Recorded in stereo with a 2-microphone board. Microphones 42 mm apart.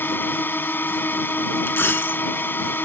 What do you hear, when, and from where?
0.0 s a drone: 50° left (ahead or behind)
1.7 s a dropped coin: 60° left (ahead or behind)